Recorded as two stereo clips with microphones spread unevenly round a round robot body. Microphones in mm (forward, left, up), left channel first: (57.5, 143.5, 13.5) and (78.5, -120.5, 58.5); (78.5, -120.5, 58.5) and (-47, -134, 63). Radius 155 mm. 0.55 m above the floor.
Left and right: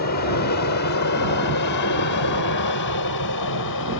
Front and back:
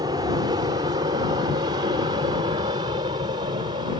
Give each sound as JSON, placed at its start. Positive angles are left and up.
{"t": 0.0, "sound": "an aircraft", "azimuth_deg": 125}